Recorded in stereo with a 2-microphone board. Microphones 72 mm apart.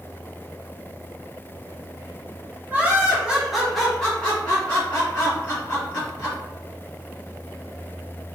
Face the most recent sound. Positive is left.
turn(degrees=35)  # may be behind; listen again after turning